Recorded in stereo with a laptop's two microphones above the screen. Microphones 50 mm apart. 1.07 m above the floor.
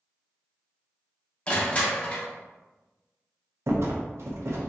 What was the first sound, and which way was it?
Crushing, 20° left (ahead or behind).